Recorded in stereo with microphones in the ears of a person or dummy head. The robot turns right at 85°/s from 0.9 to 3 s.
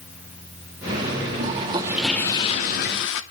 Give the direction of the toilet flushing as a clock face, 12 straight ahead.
2 o'clock.